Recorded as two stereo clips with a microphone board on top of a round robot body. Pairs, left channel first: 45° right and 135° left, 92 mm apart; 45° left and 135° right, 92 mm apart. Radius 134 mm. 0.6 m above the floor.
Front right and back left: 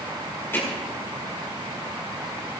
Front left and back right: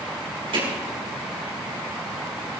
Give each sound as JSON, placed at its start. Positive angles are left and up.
{"t": 0.5, "sound": "hammering", "azimuth_deg": -115, "distance_m": 6.0}